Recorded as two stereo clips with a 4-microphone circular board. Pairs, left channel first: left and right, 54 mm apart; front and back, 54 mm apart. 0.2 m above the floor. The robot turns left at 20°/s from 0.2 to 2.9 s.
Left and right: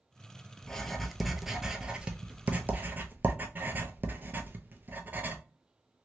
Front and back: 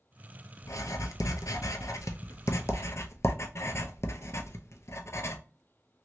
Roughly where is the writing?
Ahead.